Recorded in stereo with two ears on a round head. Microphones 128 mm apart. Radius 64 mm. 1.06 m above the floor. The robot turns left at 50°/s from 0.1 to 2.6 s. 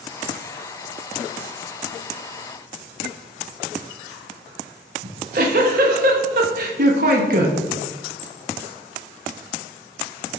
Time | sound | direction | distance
5.0 | a giggle | 65° right (ahead or behind) | 0.8 m